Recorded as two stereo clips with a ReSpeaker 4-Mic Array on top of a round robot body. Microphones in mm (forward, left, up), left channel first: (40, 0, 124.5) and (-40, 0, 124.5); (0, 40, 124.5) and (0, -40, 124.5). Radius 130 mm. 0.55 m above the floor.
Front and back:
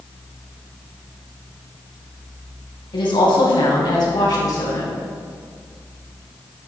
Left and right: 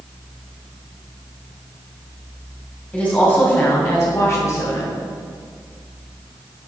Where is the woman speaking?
15° left, 4 m; by 5.0 s 45° left, 4.5 m.